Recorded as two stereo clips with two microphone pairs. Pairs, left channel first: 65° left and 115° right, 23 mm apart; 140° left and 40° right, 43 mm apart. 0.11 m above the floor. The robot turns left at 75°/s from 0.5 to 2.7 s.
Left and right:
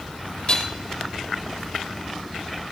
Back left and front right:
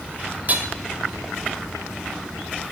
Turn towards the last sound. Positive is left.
turn(degrees=-155)